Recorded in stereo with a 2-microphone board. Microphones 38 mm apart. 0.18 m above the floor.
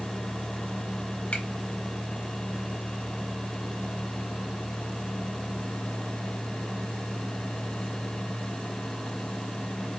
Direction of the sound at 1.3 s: 30° left (ahead or behind).